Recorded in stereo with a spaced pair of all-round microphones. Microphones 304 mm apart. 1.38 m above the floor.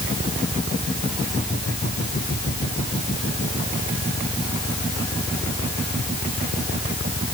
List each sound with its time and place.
Only background noise.